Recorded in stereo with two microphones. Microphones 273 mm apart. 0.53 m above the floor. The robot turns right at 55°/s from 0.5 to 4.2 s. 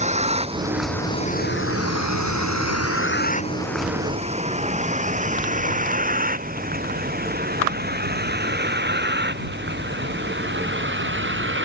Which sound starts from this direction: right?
A vehicle, at 0.0 s.